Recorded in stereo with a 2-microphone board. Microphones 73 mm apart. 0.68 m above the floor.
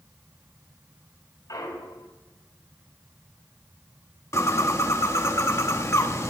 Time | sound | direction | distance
1.5 | a clunk | 55° left (ahead or behind) | 3 m
4.3 | a bird | 40° left (ahead or behind) | 1.0 m